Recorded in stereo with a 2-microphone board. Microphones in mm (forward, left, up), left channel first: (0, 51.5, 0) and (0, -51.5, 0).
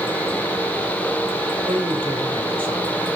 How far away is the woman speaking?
About 2.5 m.